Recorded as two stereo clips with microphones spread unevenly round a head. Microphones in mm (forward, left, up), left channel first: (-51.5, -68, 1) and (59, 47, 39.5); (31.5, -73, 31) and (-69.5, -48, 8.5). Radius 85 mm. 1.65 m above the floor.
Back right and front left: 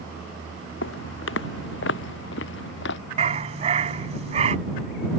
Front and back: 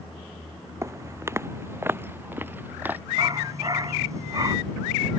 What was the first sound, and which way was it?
Footsteps, 130° right.